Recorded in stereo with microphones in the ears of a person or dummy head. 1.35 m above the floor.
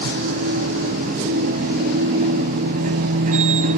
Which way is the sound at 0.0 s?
35° right (ahead or behind).